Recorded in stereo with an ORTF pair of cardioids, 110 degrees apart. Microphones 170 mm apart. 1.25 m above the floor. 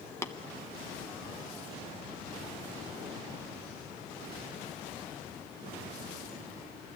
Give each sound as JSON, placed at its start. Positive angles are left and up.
{"t": 0.2, "sound": "tapping", "azimuth_deg": 15, "distance_m": 0.8}